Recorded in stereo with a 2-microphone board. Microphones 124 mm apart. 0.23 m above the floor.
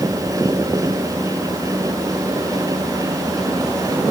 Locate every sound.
Only background noise.